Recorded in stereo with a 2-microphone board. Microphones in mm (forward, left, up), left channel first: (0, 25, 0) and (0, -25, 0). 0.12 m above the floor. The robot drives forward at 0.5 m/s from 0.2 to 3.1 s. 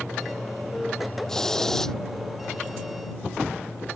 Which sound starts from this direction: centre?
A hiss, at 1.3 s.